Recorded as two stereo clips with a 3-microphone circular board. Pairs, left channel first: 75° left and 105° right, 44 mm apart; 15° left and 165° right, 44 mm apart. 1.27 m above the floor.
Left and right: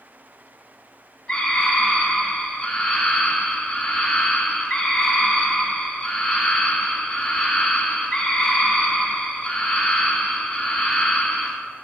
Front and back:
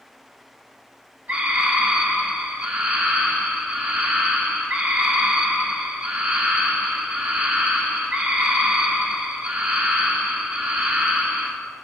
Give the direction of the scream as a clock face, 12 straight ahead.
7 o'clock.